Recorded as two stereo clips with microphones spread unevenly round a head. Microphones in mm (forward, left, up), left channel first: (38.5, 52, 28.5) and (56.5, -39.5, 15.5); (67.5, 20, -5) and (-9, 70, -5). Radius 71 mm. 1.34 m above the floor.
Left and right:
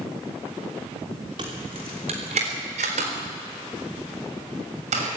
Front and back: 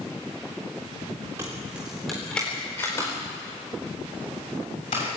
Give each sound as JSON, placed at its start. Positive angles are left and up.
{"t": 1.4, "sound": "keys jangling", "azimuth_deg": -140, "distance_m": 3.0}